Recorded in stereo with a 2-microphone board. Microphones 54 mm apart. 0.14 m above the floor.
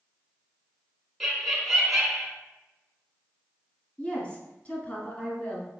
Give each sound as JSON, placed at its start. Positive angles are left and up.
{"t": 1.2, "sound": "laughter", "side_deg": -5, "distance_m": 1.0}
{"t": 4.0, "sound": "a woman speaking", "side_deg": 25, "distance_m": 1.3}